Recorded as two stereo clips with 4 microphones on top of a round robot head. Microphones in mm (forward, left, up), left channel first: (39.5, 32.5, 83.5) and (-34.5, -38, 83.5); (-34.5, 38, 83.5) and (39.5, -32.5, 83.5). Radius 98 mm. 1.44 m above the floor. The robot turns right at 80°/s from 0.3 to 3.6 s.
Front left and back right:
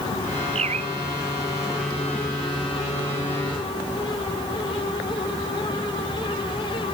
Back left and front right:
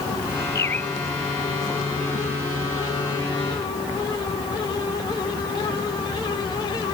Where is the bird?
165° right; by 0.9 s 135° right.